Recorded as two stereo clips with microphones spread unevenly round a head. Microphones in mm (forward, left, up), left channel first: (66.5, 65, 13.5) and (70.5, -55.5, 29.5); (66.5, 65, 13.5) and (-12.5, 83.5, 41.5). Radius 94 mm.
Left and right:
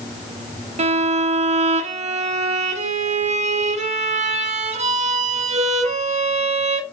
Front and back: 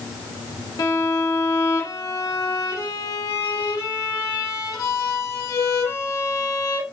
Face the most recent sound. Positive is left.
turn(degrees=-55)